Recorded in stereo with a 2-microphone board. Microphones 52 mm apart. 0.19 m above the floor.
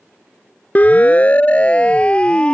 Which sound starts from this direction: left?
A siren, at 0.8 s.